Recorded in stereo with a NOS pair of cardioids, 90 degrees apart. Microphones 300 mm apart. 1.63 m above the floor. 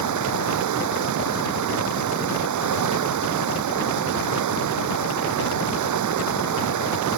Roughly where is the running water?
Right.